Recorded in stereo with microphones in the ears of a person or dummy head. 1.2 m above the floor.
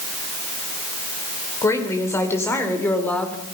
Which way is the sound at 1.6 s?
20° left (ahead or behind).